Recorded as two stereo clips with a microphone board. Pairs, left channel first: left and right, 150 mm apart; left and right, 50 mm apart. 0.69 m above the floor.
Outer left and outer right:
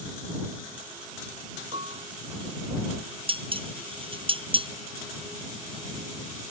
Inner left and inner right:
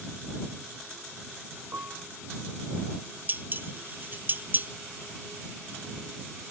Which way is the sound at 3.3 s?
40° right (ahead or behind).